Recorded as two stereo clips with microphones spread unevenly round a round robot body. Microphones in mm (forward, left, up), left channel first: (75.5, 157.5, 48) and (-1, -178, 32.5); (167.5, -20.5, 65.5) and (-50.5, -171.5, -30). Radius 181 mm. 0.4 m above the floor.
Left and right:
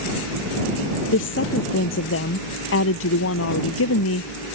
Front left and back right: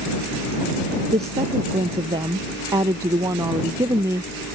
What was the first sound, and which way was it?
A woman speaking, 135° left.